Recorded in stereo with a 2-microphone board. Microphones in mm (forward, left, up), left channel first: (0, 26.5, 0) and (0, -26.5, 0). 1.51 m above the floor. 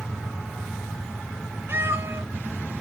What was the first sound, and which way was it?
A cat meowing, 50° right (ahead or behind).